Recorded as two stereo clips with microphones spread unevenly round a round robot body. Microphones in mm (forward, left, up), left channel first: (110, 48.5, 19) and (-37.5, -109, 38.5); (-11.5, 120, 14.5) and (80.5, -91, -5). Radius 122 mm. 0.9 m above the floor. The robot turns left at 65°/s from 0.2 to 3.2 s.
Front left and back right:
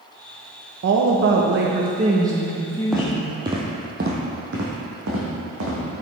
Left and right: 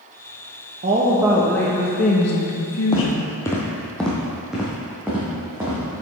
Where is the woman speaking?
115° right, 0.7 m; by 3.3 s 90° left, 0.7 m.